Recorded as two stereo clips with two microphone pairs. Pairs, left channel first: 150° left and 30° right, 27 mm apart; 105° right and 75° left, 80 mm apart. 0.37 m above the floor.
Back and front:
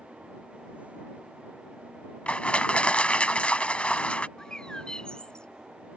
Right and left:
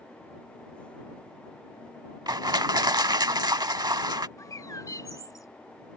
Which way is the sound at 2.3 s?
110° left.